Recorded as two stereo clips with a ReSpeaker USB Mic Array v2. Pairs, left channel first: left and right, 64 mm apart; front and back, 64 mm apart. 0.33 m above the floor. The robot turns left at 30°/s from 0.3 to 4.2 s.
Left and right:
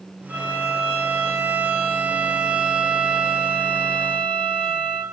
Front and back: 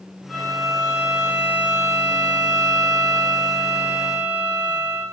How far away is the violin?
About 0.9 m.